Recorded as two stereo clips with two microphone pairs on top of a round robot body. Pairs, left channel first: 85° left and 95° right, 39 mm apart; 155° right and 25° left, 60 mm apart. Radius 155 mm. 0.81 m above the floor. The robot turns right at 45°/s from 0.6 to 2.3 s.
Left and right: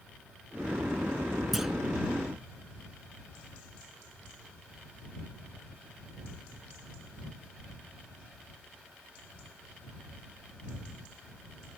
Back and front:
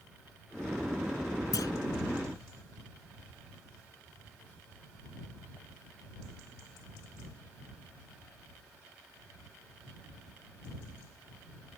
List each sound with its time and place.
1.5 s a clunk: 175° left; by 1.7 s 175° right